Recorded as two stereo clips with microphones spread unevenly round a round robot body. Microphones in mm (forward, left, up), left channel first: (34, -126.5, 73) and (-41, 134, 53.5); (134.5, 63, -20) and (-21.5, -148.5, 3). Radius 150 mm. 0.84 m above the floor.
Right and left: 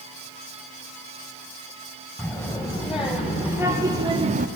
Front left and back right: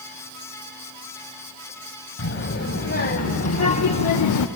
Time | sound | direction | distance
2.2 | a child speaking | 15° left | 2.5 m